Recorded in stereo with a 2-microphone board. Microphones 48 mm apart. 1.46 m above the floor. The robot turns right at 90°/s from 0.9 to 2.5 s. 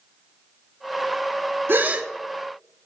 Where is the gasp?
50° right, 0.8 m; by 2.1 s 15° right, 0.8 m.